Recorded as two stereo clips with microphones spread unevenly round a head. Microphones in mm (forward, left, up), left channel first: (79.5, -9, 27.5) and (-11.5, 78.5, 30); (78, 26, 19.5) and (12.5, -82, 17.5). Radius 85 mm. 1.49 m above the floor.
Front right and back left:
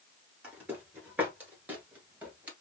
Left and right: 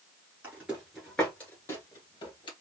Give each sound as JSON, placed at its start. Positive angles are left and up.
{"t": 0.4, "sound": "footsteps", "azimuth_deg": -170, "distance_m": 1.5}